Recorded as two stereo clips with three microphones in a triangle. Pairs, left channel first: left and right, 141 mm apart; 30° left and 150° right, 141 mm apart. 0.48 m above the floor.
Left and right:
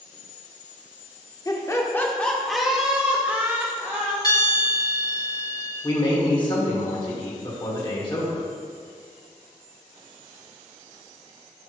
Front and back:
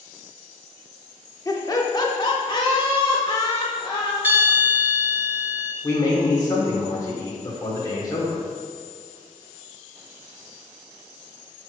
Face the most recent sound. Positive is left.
turn(degrees=70)